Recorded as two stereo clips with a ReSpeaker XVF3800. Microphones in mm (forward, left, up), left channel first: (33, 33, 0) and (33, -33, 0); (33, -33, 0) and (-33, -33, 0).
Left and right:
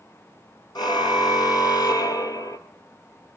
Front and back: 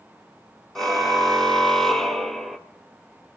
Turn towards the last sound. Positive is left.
turn(degrees=90)